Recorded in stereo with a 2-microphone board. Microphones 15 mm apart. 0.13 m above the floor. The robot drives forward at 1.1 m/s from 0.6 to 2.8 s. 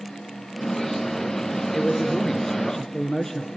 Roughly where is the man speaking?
Left.